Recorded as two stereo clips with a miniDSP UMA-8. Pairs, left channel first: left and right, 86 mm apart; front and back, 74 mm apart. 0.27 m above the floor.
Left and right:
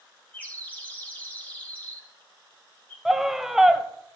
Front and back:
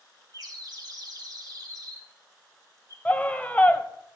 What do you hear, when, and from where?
0.3 s a bird: 160° left, 3.5 m
3.0 s a scream: 10° right, 0.9 m